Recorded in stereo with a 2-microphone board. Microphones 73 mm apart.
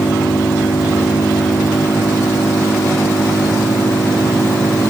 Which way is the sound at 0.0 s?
60° left (ahead or behind).